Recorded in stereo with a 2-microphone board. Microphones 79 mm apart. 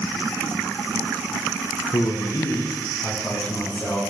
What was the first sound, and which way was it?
A man speaking, 50° left (ahead or behind).